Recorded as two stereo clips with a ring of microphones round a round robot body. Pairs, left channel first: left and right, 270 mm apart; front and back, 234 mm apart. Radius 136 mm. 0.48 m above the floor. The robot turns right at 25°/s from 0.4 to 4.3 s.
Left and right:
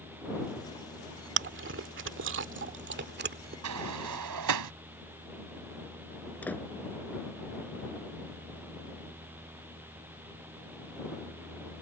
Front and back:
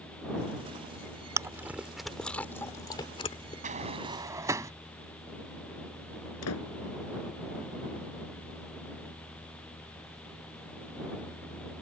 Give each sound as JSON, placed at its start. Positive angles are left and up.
{"t": 1.4, "sound": "chewing", "azimuth_deg": -105}
{"t": 3.6, "sound": "a sliding door", "azimuth_deg": -120}
{"t": 6.4, "sound": "a door slam", "azimuth_deg": 5}